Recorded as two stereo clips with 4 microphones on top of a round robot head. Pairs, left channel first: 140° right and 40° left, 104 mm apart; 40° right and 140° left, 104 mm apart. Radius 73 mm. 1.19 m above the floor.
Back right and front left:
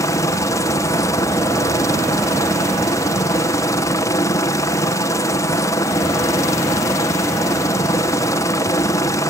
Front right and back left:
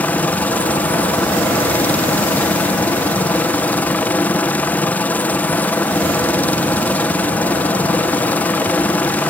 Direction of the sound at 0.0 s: 105° right.